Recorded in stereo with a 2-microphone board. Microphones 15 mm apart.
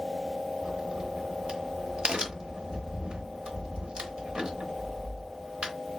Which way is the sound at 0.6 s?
70° right (ahead or behind).